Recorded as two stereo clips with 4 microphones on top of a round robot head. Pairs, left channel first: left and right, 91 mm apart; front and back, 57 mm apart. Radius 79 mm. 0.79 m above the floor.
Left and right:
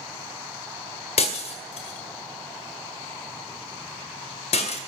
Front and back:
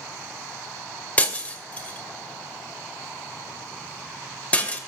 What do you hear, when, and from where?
1.2 s breaking glass: 65° left, 2 m